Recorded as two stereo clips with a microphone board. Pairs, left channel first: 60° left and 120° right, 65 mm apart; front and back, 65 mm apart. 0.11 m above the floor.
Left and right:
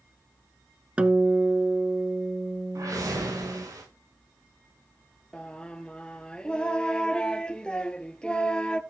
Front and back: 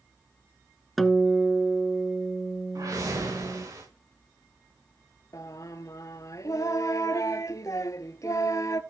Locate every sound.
1.0 s a guitar: 85° right, 1.1 m
2.8 s a whoosh: 155° right, 6 m
5.3 s singing: 15° right, 0.7 m